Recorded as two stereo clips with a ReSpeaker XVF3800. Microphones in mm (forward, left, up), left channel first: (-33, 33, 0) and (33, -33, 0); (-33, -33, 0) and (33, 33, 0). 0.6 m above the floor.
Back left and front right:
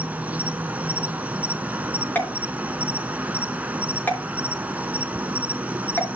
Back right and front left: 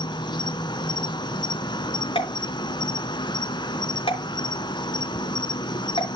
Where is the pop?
155° right, 3.5 m.